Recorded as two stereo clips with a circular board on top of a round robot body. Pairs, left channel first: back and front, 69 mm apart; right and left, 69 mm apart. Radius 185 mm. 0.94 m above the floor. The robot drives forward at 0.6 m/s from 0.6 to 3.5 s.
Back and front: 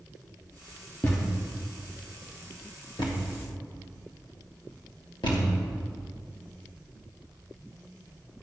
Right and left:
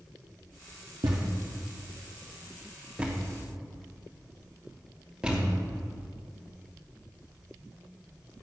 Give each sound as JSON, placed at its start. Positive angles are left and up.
{"t": 1.0, "sound": "a thud", "azimuth_deg": 115, "distance_m": 0.6}